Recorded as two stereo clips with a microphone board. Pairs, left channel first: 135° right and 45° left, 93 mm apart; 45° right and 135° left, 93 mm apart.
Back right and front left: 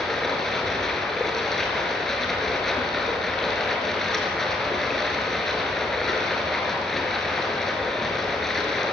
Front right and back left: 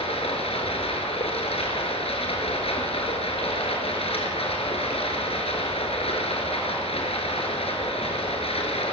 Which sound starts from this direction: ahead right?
Running water, at 0.0 s.